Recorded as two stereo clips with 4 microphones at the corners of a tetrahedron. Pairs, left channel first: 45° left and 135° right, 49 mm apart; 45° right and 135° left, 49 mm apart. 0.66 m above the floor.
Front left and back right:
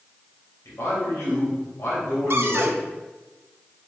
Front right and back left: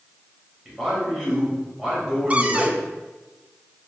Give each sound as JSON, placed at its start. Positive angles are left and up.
{"t": 0.7, "sound": "a man speaking", "azimuth_deg": 60, "distance_m": 3.5}
{"t": 2.3, "sound": "a cupboard door", "azimuth_deg": -165, "distance_m": 0.6}